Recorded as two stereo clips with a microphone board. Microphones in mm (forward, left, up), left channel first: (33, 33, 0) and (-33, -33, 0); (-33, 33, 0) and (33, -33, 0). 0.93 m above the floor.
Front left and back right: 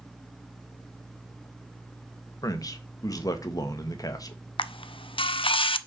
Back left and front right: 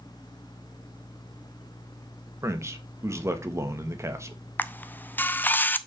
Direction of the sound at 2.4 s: 5° left.